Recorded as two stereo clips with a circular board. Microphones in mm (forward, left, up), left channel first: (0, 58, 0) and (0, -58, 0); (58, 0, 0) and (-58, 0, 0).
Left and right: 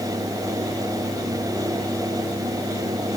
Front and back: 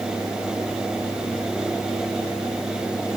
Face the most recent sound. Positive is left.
No sound to turn to.